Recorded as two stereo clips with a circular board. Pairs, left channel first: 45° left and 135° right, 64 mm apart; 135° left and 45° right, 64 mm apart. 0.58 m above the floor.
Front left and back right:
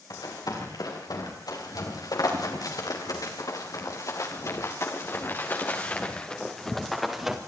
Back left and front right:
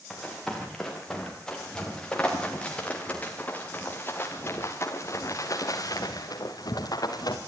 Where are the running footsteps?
50° left, 8.5 m; by 7.4 s 145° left, 3.5 m.